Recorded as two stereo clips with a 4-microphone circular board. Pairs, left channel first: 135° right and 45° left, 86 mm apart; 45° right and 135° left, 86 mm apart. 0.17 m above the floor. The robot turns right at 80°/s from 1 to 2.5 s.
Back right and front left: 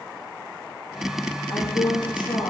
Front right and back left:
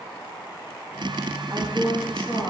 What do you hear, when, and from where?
1.5 s a woman speaking: straight behind, 7.5 m; by 2.5 s 100° right, 7.5 m